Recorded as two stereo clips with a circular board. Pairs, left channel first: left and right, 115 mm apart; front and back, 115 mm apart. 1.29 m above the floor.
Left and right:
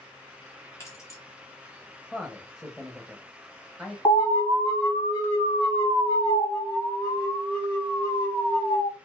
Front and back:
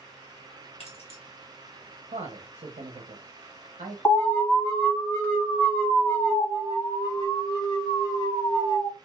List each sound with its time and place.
0.8 s keys jangling: 25° left, 1.3 m
2.1 s a man speaking: 175° right, 0.7 m
4.0 s an alarm: 65° left, 1.7 m
6.4 s an alarm: 45° left, 1.3 m